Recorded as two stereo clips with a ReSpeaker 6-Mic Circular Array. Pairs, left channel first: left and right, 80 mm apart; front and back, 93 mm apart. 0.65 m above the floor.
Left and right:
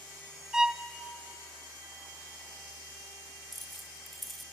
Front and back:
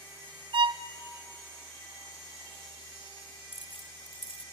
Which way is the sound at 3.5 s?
Straight ahead.